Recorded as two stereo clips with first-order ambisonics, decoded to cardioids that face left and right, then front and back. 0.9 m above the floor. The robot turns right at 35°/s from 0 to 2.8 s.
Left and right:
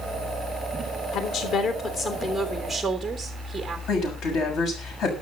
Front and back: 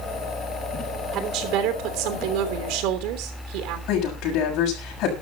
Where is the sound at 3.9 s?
40° left, 6.5 m.